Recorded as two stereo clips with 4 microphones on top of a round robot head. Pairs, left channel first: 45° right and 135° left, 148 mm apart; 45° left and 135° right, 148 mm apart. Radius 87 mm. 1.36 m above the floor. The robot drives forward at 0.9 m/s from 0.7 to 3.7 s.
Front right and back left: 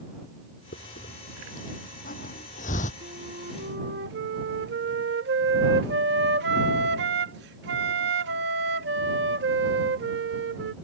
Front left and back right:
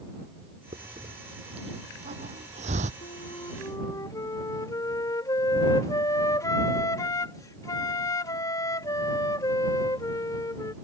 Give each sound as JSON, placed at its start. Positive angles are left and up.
{"t": 0.7, "sound": "a hiss", "azimuth_deg": -75}
{"t": 3.0, "sound": "a flute", "azimuth_deg": 90}